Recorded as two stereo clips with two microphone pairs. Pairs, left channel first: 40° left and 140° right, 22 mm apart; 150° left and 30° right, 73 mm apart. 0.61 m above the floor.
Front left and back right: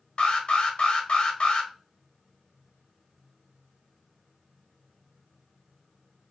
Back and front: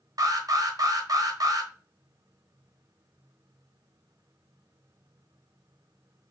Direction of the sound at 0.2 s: Straight ahead.